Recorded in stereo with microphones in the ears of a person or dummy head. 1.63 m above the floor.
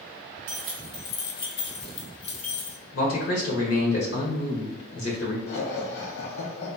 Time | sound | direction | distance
0.5 | keys jangling | 30° right (ahead or behind) | 0.5 m
2.9 | a man speaking | 80° left | 1.5 m
5.5 | laughter | 65° left (ahead or behind) | 0.9 m